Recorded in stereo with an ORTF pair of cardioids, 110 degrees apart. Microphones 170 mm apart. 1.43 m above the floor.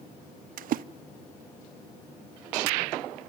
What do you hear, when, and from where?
0.6 s a splash: 60° right, 0.6 m